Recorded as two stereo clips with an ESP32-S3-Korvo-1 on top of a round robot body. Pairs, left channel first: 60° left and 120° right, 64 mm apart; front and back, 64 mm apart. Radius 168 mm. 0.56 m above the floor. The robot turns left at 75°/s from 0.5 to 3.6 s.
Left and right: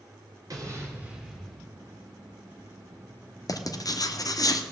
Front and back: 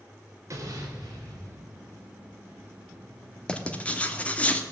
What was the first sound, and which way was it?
An explosion, 140° right.